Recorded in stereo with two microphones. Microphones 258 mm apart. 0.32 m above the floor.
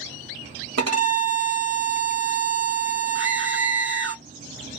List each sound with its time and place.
0.8 s a violin: 75° right (ahead or behind), 0.8 m
3.1 s a scream: 50° right (ahead or behind), 1.4 m